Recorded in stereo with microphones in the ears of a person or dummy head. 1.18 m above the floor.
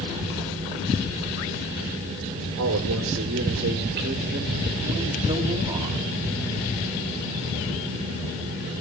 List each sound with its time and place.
2.6 s a man speaking: 65° right (ahead or behind), 1.7 m; by 6.0 s 20° right (ahead or behind), 3.5 m